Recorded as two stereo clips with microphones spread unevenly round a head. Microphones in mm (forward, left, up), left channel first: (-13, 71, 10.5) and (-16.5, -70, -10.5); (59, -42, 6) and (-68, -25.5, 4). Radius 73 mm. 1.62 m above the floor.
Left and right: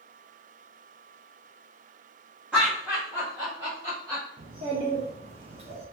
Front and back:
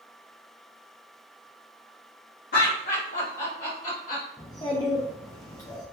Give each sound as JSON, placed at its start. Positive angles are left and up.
{"t": 2.5, "sound": "laughter", "azimuth_deg": -5, "distance_m": 0.8}
{"t": 4.4, "sound": "a child speaking", "azimuth_deg": -50, "distance_m": 0.5}